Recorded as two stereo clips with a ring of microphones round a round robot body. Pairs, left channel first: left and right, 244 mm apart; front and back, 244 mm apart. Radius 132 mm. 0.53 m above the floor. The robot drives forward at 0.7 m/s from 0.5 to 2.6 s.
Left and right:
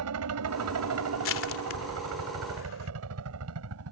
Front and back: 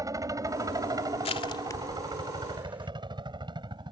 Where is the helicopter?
105° right; by 3.9 s 110° right.